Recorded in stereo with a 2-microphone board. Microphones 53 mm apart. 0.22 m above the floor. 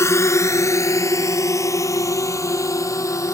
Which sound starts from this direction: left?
A drone, at 0.0 s.